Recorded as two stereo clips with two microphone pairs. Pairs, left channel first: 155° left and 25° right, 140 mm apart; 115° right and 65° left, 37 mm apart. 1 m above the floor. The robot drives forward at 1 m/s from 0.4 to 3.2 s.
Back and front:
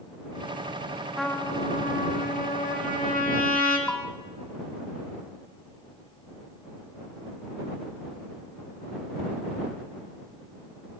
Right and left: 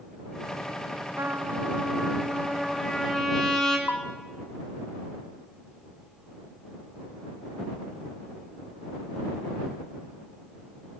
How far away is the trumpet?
About 0.5 m.